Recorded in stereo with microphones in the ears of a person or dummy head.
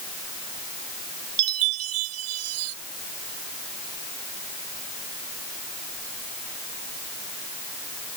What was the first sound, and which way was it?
A chime, 85° right.